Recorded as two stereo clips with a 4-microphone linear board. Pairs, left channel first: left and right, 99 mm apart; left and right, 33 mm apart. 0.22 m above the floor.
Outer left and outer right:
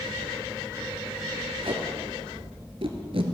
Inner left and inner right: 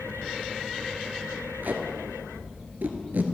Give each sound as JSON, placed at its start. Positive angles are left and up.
{"t": 1.6, "sound": "tape being pulled", "side_deg": -70, "distance_m": 1.1}